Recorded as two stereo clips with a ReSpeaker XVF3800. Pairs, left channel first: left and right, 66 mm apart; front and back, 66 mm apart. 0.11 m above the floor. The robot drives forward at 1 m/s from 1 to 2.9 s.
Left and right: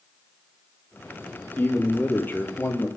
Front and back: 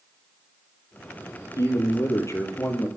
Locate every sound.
1.6 s a man speaking: 30° left, 3.5 m; by 2.9 s 45° left, 2.5 m